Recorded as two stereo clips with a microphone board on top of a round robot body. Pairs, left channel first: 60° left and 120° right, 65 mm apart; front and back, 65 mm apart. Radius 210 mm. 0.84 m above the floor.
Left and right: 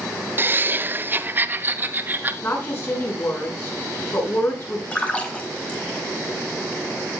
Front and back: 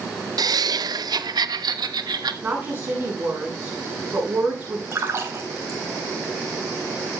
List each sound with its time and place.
0.4 s laughter: 175° right, 0.6 m; by 2.3 s straight behind, 1.7 m
2.4 s a woman speaking: 115° left, 9 m
4.9 s a splash: 130° left, 3.5 m